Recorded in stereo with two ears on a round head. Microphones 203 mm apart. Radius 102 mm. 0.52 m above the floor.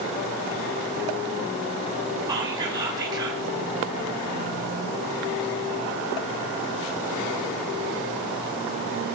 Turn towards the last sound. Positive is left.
turn(degrees=-20)  # may be behind; listen again after turning